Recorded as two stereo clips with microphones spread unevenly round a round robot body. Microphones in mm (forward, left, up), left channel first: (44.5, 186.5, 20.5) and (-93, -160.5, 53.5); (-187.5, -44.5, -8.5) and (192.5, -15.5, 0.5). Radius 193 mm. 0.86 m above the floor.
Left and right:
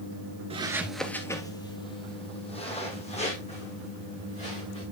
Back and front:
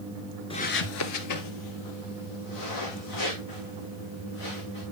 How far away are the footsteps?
About 0.8 m.